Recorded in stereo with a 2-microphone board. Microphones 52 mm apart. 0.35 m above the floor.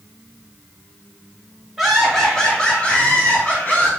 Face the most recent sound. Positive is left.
turn(degrees=35)  # may be behind; listen again after turning